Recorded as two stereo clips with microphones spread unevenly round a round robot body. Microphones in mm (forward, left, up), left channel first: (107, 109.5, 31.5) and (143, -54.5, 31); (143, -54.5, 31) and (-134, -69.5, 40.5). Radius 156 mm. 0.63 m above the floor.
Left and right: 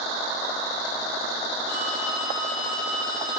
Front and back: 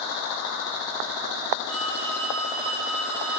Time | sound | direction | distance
1.7 | a phone ringing | 130° left | 6 m